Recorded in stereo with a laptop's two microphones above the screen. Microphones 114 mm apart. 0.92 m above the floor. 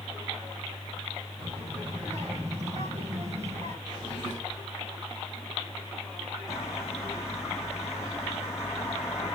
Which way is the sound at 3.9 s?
40° right (ahead or behind).